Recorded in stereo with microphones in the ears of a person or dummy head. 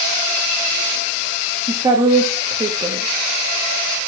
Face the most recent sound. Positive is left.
turn(degrees=-20)  # may be behind; listen again after turning